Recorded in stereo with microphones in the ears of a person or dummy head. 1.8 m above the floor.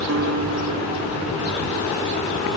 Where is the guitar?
75° right (ahead or behind).